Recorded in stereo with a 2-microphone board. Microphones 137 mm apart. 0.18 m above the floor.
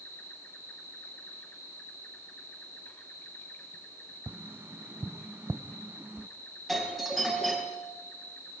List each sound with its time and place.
0.0 s an insect: 15° left (ahead or behind), 3.5 m
4.3 s tapping: 15° right (ahead or behind), 0.6 m
6.7 s a doorbell: centre (ahead or behind), 4.5 m